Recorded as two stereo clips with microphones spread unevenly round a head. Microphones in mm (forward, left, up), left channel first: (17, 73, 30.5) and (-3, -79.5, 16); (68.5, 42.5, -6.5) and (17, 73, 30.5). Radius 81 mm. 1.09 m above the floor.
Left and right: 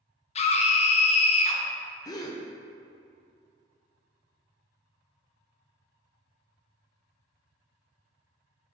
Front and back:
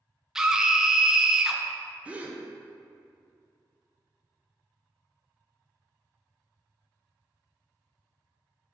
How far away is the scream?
About 0.6 m.